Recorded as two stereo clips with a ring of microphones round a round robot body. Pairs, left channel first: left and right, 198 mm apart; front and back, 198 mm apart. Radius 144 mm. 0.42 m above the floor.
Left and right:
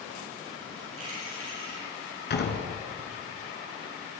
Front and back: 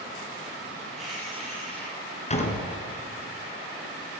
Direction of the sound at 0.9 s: 90° right.